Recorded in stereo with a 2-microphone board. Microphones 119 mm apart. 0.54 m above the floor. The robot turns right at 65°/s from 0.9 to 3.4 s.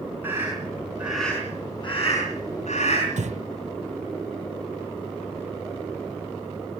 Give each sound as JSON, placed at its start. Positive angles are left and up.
{"t": 0.2, "sound": "a scream", "side_deg": -15, "distance_m": 5.5}
{"t": 3.2, "sound": "breathing", "side_deg": -75, "distance_m": 0.9}